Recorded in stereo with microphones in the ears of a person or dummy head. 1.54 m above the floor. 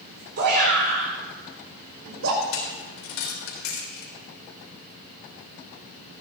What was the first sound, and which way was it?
A shout, 55° right (ahead or behind).